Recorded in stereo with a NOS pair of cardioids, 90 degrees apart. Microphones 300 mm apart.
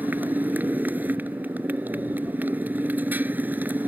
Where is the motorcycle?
5° right.